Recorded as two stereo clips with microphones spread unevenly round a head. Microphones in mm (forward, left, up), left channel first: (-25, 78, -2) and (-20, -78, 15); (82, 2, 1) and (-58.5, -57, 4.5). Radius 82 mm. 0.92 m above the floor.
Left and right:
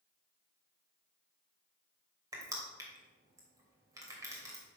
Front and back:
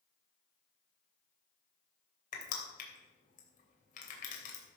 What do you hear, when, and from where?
2.3 s crushing: 15° right, 3 m